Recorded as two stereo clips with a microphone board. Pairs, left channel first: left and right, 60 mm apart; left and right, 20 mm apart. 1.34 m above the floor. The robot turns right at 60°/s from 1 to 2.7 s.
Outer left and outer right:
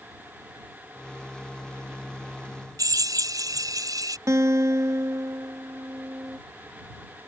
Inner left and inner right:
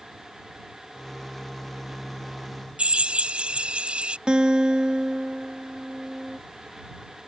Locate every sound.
2.8 s a drill: 90° right
4.3 s a guitar: 60° right (ahead or behind)